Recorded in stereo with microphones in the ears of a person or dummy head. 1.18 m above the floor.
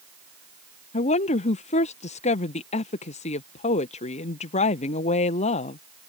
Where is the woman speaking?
40° left (ahead or behind).